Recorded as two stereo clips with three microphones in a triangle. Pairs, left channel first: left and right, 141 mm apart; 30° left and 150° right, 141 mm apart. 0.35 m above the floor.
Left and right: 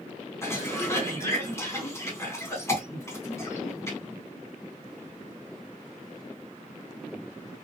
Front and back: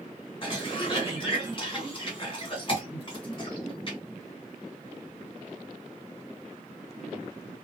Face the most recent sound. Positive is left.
turn(degrees=35)